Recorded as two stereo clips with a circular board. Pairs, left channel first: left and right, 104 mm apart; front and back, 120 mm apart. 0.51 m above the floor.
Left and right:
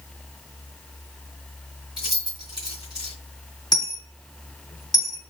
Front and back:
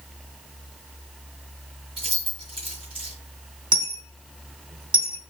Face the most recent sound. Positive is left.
turn(degrees=135)